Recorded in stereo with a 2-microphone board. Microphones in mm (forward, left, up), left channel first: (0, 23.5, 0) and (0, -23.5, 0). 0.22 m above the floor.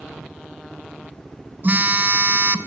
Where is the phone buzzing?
45° right (ahead or behind), 1.2 m.